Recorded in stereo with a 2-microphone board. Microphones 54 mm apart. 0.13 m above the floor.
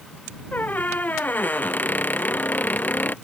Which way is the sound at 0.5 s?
35° left (ahead or behind).